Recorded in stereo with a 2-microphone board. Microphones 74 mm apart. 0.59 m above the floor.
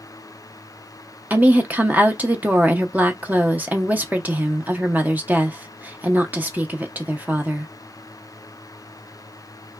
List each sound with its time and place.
1.3 s a woman speaking: 25° right (ahead or behind), 0.6 m